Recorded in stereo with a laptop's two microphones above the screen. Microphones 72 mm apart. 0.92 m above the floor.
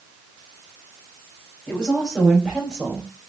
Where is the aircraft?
No aircraft in this recording.